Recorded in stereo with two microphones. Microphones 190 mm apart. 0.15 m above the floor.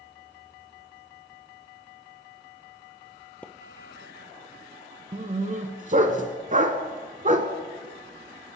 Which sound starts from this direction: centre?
A splash, at 3.4 s.